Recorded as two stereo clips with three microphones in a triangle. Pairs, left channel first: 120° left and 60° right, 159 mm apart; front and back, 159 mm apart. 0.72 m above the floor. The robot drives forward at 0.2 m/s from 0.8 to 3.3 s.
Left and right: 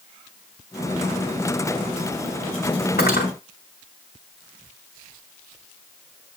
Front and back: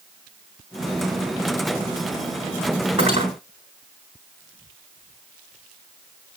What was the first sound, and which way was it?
Cutlery clinking, 125° left.